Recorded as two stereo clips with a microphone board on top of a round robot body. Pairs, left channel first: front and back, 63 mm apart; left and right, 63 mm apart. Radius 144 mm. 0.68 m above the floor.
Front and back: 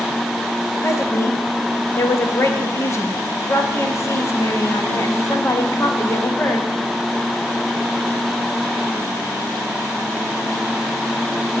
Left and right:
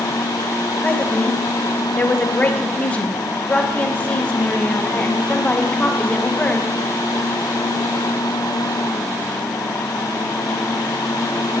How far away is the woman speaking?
About 1.4 m.